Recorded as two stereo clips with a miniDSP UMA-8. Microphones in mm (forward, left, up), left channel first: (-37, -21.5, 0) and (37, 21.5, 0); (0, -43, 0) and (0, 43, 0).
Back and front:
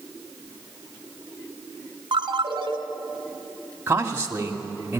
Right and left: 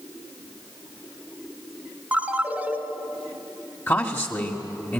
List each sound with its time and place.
2.1 s a ringtone: 20° left, 1.6 m
3.9 s a man speaking: 35° right, 1.8 m